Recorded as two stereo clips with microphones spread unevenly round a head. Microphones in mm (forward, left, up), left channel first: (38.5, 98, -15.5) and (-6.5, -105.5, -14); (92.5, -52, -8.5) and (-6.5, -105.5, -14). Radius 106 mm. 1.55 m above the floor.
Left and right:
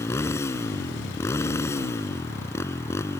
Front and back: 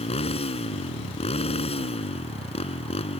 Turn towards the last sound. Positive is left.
turn(degrees=0)